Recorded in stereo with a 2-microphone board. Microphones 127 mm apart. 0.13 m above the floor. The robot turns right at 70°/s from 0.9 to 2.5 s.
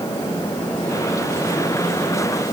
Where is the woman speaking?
No woman speaking in this recording.